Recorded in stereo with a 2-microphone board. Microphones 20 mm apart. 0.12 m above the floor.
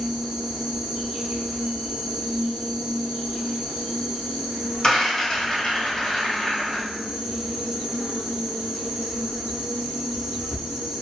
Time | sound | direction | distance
0.0 | an insect | 85° right | 0.9 m
4.8 | a rattle | 35° left (ahead or behind) | 1.5 m